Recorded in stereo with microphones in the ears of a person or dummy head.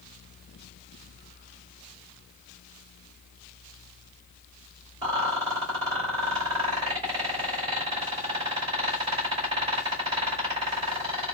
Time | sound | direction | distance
5.0 | a rattle | 25° right (ahead or behind) | 2.5 m